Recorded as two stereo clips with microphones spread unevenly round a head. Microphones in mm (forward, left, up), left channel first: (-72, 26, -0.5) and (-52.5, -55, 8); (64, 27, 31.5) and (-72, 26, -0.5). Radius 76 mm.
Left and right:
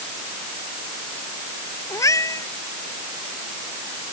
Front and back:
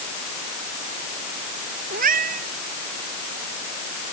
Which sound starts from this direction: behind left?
A cat meowing, at 1.9 s.